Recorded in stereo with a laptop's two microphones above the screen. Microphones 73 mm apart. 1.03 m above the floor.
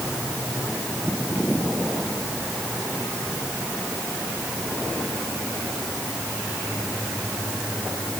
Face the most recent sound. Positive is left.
No sound to turn to.